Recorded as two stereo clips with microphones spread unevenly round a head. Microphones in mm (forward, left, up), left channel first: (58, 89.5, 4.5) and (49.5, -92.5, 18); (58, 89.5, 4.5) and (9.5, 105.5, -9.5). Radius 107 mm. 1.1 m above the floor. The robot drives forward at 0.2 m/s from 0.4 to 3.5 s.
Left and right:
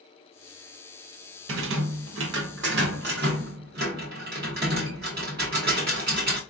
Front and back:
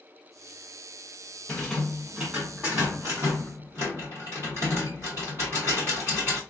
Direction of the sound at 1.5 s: 110° right.